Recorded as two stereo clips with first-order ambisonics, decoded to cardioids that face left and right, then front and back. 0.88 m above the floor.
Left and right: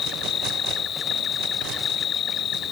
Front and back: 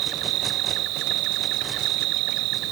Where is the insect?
150° left.